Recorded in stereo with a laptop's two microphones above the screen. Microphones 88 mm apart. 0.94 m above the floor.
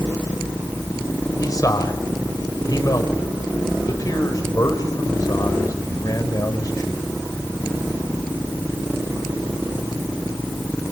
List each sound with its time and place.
1.4 s a man speaking: 45° left (ahead or behind), 5.5 m